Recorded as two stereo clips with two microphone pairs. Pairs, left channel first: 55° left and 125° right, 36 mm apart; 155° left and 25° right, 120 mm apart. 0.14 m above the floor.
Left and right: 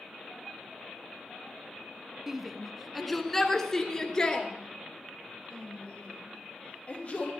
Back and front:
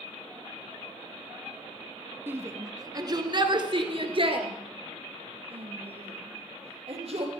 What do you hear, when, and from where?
2.3 s a shout: 65° right, 1.1 m; by 7.3 s 5° left, 3 m